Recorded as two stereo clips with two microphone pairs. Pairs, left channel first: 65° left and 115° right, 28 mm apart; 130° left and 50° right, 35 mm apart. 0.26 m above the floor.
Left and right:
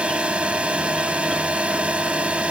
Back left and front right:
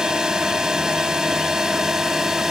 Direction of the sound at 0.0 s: 105° right.